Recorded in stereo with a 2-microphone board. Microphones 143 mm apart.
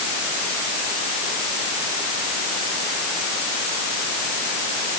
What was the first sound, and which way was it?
Only background noise.